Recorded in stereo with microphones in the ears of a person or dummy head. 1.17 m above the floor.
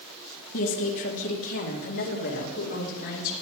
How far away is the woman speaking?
About 1.9 m.